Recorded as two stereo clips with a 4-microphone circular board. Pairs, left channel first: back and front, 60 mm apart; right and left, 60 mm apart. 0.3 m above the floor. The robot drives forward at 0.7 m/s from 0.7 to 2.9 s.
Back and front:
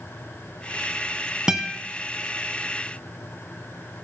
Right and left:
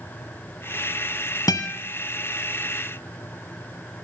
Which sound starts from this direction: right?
A guitar, at 1.5 s.